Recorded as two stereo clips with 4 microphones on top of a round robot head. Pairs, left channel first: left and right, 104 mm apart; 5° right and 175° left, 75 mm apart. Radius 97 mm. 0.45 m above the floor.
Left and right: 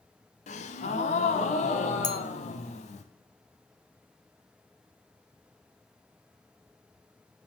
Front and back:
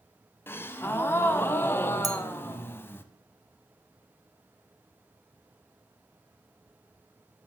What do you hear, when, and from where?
0.5 s a gasp: 60° left, 0.6 m
2.0 s a clink: 140° left, 1.0 m